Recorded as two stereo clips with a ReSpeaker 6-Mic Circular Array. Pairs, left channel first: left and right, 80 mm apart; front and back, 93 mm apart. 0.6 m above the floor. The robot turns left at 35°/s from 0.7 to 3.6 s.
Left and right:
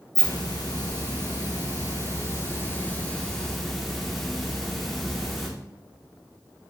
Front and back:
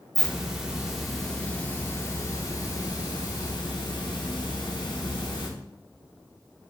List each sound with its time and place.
0.1 s a hiss: 105° left, 1.0 m; by 5.5 s straight ahead, 1.0 m